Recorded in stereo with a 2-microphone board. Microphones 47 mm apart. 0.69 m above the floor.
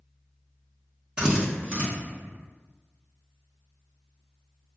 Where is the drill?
20° right (ahead or behind), 1.1 m.